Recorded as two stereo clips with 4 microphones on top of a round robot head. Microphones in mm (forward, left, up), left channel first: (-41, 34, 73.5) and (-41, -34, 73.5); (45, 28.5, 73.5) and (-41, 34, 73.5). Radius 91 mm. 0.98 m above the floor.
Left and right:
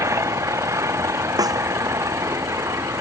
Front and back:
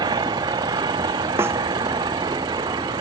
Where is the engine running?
135° right.